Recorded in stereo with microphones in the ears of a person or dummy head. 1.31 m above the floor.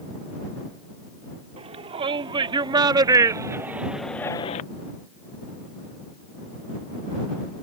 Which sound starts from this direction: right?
A shout, at 1.6 s.